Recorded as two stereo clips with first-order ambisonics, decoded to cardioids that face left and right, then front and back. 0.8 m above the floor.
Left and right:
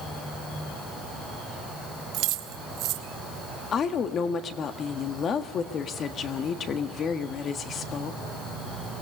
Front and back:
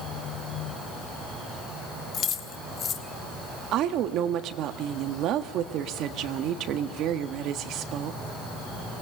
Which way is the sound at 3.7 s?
145° left.